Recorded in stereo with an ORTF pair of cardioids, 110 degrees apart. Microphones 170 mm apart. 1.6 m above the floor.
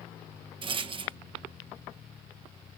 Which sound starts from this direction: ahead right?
A rattle, at 0.6 s.